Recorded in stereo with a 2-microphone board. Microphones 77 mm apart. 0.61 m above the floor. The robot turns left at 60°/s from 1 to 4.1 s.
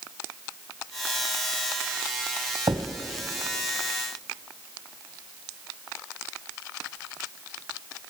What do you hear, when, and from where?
2.7 s a thud: 55° right (ahead or behind), 1.1 m; by 2.9 s 45° right (ahead or behind), 1.1 m